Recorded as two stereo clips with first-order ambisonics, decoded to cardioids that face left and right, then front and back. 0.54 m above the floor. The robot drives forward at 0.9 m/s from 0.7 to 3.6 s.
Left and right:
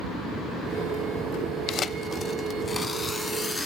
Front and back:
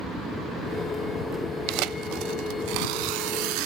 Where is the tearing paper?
150° left, 0.7 m; by 3.7 s 170° left, 2.5 m.